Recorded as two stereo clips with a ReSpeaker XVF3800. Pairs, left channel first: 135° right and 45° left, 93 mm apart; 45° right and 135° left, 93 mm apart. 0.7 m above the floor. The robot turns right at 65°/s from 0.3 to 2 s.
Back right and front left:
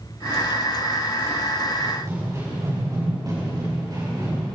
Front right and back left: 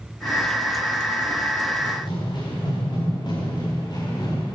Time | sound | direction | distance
1.8 | running footsteps | 25° right | 8 m